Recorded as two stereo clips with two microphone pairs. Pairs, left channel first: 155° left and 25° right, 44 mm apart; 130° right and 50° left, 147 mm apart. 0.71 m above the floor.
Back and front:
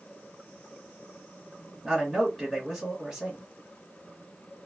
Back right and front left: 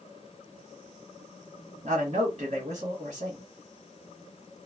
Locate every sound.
1.8 s a man speaking: 55° left, 1.3 m